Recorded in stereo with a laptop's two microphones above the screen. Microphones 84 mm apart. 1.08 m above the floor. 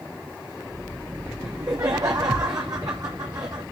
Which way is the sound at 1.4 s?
45° right (ahead or behind).